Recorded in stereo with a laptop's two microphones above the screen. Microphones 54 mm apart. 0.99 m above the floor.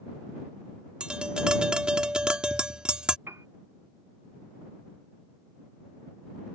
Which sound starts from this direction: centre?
Tapping, at 1.0 s.